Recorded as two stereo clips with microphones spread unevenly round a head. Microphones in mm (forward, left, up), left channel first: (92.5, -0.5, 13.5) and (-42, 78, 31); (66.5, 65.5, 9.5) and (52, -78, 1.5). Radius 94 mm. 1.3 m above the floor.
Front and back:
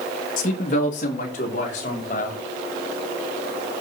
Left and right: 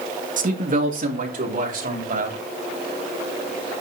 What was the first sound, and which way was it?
A man speaking, 75° right.